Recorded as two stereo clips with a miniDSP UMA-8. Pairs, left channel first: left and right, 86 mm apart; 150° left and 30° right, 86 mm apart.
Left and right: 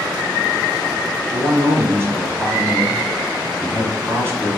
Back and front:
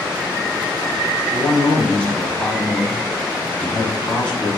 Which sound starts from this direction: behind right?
A man speaking, at 1.3 s.